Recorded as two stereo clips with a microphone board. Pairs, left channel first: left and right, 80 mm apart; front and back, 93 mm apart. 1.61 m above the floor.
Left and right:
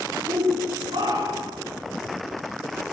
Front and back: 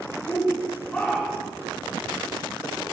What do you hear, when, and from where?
0.3 s a shout: 80° right, 4.5 m